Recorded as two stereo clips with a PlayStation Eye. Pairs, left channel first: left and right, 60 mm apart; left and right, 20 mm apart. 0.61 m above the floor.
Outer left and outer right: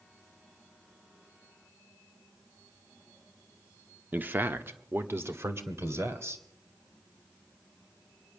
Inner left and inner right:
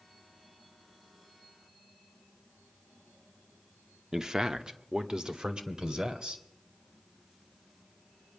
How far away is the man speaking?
About 0.8 m.